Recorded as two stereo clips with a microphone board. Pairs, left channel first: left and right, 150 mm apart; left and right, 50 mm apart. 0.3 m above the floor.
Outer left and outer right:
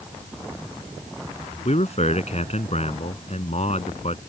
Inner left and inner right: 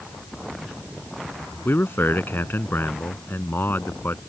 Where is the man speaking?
50° left (ahead or behind).